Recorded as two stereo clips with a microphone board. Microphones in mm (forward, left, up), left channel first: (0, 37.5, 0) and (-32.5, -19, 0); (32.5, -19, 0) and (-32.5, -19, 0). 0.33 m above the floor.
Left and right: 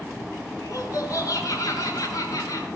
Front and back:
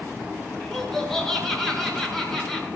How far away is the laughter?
About 6 m.